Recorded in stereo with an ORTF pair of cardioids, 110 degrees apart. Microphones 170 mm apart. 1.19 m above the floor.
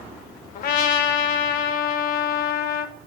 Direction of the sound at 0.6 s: 60° left.